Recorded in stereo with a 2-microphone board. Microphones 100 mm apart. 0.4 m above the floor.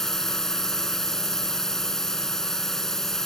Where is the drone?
5° left (ahead or behind).